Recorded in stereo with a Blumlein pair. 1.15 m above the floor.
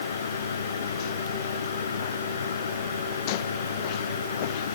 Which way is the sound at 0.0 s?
70° left.